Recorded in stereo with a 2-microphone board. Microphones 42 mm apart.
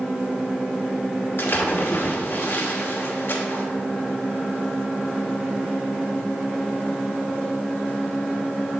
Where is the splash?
60° left (ahead or behind), 1.2 m.